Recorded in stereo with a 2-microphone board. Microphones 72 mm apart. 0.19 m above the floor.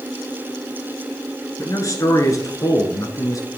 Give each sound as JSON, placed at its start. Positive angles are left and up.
{"t": 1.6, "sound": "a man speaking", "side_deg": 45, "distance_m": 2.5}